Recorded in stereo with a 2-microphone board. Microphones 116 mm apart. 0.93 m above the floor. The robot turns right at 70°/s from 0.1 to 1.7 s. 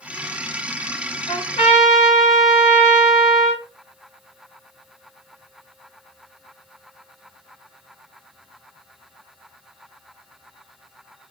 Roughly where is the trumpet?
Left.